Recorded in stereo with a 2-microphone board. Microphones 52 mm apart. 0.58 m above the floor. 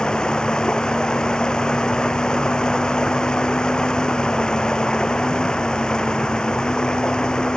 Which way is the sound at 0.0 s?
15° left (ahead or behind).